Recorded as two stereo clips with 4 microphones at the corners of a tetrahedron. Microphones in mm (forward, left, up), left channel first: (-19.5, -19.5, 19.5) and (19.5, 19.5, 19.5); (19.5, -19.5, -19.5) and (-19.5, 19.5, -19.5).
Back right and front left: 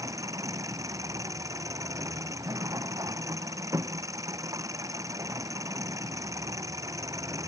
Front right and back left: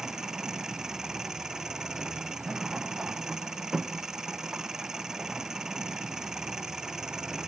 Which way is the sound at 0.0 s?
55° left.